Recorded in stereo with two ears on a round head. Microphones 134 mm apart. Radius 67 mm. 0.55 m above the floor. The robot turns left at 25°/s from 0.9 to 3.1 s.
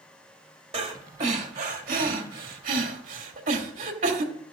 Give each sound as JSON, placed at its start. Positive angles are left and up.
{"t": 0.7, "sound": "breathing", "side_deg": -40, "distance_m": 1.4}